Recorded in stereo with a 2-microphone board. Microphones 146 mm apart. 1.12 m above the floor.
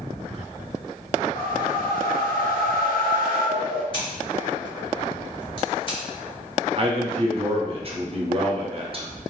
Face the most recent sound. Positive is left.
turn(degrees=-40)  # may be behind; listen again after turning